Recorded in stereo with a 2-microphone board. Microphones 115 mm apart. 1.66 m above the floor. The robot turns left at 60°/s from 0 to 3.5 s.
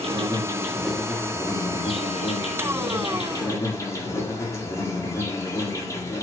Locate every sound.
0.0 s an insect: 125° right, 6.5 m; by 6.2 s 25° left, 6.5 m